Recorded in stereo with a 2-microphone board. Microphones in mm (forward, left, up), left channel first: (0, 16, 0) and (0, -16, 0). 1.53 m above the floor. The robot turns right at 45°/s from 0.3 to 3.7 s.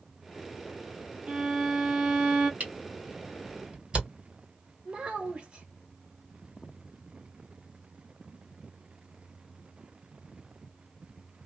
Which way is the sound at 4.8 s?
35° right (ahead or behind).